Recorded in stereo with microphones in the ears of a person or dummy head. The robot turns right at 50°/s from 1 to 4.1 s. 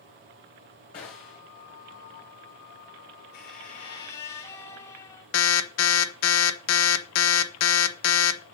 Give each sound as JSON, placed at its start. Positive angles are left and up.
{"t": 0.9, "sound": "a gunshot", "side_deg": 20, "distance_m": 1.3}
{"t": 3.3, "sound": "a squeak", "azimuth_deg": 125, "distance_m": 2.5}
{"t": 5.3, "sound": "an alarm", "side_deg": 85, "distance_m": 1.1}